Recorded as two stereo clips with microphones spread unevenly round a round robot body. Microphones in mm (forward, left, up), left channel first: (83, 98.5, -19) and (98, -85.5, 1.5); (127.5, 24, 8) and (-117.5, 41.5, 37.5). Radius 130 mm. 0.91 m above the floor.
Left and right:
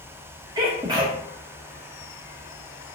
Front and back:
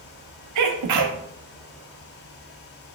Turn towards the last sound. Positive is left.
turn(degrees=-165)